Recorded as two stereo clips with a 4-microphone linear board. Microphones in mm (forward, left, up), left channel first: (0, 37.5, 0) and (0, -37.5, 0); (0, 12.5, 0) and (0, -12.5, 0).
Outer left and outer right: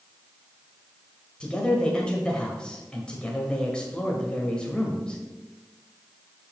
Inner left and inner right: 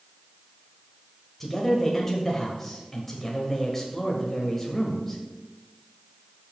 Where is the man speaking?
15° left (ahead or behind), 1.1 m.